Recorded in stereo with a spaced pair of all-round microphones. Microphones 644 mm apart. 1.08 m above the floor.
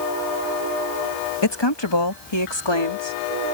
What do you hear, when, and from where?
1.4 s a woman speaking: 40° left (ahead or behind)